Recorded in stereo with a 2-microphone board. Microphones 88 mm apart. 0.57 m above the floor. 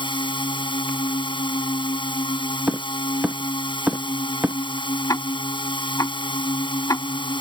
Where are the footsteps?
15° right (ahead or behind); by 4.6 s 20° right (ahead or behind).